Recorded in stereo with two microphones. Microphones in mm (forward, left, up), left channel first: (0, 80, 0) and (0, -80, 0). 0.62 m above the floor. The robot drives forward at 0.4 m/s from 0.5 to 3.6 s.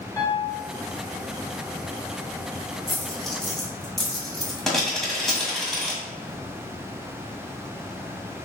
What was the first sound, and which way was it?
A piano, 20° left (ahead or behind).